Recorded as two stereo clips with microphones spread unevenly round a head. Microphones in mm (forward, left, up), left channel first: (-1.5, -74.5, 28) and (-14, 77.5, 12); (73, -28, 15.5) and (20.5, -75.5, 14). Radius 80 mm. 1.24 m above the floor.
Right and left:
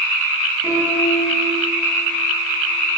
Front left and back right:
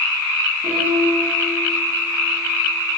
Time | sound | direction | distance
0.6 | a piano | 170° left | 10 m